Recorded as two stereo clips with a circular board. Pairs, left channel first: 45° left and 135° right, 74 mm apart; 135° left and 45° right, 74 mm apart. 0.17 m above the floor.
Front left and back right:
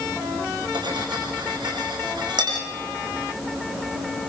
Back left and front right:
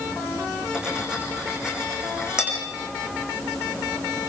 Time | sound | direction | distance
0.7 | cutlery clinking | 125° right | 7 m